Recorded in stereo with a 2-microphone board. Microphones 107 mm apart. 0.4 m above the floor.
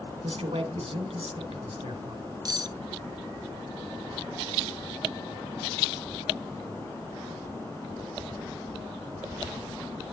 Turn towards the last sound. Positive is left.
turn(degrees=-40)  # may be behind; listen again after turning